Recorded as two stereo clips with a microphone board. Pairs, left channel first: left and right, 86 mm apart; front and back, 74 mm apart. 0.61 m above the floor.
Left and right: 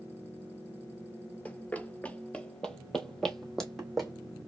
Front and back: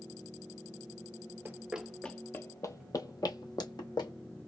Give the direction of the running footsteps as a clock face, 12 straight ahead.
7 o'clock.